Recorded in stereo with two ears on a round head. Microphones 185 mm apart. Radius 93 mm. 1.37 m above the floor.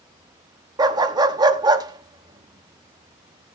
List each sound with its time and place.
0.8 s a dog barking: 20° right (ahead or behind), 0.8 m